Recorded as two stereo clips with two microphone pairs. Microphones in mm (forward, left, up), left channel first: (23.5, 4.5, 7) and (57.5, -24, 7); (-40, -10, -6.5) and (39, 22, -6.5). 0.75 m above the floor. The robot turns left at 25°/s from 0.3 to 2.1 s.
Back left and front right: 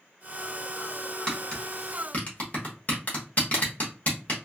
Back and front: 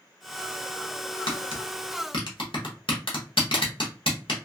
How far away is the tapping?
About 1.0 m.